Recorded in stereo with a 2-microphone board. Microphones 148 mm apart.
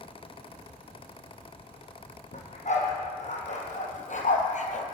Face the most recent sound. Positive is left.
turn(degrees=55)  # may be behind; listen again after turning